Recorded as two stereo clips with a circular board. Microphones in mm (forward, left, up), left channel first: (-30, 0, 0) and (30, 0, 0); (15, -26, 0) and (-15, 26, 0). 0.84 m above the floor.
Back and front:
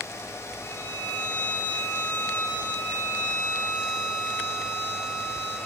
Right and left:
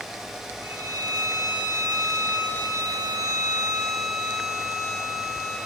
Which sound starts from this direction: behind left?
A violin, at 0.6 s.